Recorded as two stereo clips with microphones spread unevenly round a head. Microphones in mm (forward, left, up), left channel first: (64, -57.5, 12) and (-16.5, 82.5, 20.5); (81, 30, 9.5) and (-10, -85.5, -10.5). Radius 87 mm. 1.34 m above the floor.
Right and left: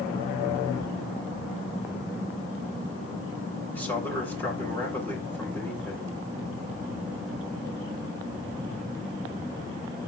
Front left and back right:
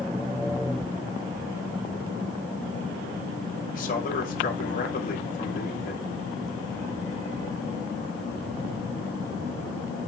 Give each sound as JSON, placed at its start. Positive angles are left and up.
{"t": 3.7, "sound": "a man speaking", "azimuth_deg": 20, "distance_m": 6.0}